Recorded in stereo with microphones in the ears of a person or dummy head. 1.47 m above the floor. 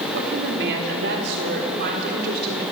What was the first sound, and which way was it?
A woman speaking, 65° right (ahead or behind).